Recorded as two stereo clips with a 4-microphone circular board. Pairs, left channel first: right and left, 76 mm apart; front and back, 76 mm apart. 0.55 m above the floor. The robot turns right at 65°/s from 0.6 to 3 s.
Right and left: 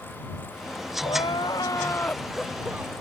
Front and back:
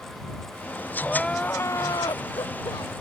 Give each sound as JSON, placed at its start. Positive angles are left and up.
{"t": 1.0, "sound": "crying", "azimuth_deg": -95}